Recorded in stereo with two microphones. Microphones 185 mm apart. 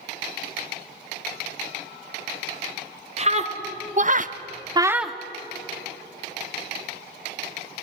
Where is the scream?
35° right (ahead or behind), 2.5 m; by 5.2 s 5° left (ahead or behind), 1.0 m.